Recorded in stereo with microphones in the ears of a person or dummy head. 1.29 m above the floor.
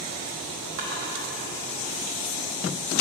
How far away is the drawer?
About 1.0 m.